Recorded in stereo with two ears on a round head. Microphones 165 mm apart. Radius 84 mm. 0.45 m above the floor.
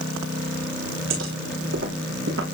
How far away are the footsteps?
About 9 m.